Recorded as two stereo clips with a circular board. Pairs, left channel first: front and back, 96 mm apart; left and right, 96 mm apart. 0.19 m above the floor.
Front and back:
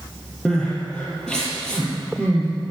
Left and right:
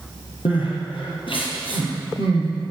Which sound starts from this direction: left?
Crying, at 0.5 s.